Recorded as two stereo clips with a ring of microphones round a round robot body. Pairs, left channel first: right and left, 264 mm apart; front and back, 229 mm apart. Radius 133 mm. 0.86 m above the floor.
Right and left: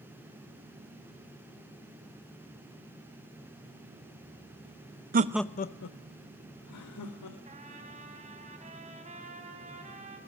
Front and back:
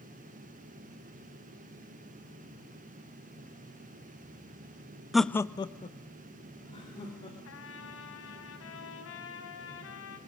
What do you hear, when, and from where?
5.1 s laughter: 95° left, 0.6 m; by 7.3 s 70° right, 3 m
7.5 s a trumpet: 25° left, 3.5 m